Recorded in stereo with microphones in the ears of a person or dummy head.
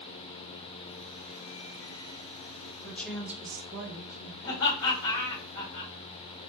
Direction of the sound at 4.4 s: 85° left.